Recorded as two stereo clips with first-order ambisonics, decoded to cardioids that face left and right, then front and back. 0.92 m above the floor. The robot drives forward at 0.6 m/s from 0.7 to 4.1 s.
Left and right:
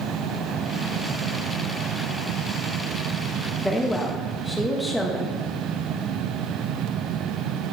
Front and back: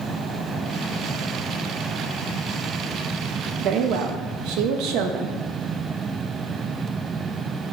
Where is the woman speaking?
175° left, 0.6 m; by 5.3 s straight behind, 0.8 m.